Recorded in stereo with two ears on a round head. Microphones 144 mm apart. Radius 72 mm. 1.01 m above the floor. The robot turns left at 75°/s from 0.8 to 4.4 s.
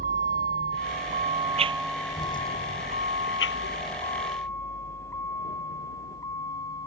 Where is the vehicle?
55° right (ahead or behind); by 6.9 s 20° left (ahead or behind).